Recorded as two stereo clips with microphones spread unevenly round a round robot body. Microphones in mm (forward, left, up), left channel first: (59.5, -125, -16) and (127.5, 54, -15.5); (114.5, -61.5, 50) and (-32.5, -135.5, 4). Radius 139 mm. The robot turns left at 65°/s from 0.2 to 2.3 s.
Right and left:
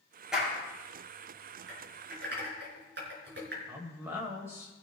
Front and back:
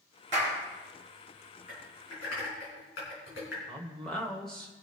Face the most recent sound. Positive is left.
turn(degrees=135)